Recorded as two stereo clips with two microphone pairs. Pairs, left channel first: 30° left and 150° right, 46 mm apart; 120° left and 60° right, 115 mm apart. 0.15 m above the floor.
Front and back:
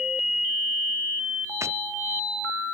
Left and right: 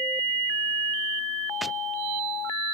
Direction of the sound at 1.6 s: 150° right.